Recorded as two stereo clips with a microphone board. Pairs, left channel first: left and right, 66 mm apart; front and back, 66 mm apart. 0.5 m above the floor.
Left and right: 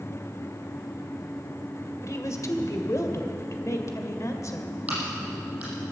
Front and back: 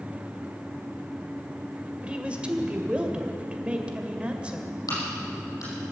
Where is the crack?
25° right, 6.5 m.